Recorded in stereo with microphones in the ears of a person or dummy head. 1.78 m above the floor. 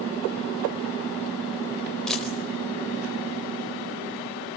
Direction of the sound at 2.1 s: Centre (ahead or behind).